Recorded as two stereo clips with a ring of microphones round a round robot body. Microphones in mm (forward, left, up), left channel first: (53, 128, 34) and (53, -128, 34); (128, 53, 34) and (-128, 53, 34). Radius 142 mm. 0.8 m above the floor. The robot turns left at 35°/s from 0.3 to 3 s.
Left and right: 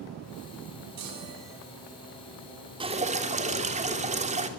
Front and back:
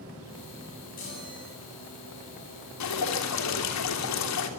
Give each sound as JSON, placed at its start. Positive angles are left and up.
{"t": 1.0, "sound": "a chime", "azimuth_deg": -65, "distance_m": 8.0}
{"t": 2.8, "sound": "dripping", "azimuth_deg": -20, "distance_m": 3.0}